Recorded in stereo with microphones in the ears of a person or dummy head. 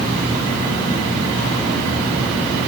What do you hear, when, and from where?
Only background noise.